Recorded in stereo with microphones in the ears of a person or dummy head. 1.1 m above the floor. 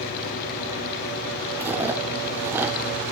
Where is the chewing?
10° right (ahead or behind), 2 m.